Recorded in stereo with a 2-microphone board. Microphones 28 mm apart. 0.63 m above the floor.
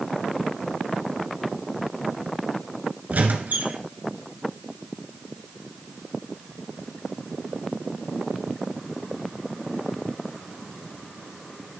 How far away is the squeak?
About 1.6 m.